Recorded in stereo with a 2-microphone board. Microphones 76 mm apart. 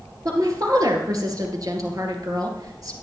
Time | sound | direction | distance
0.2 | a woman speaking | 55° right (ahead or behind) | 2.5 m